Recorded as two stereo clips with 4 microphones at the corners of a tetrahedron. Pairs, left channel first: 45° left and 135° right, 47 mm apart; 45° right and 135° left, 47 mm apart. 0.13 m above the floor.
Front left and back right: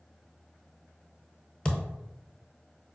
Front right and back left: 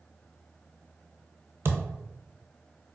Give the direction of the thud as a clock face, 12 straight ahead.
8 o'clock.